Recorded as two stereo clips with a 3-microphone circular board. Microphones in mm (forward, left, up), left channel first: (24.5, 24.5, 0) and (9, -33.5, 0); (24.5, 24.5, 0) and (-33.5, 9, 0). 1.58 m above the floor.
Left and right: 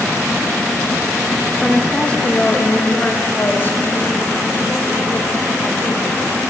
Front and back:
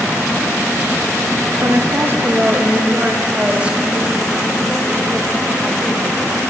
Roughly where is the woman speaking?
Behind left.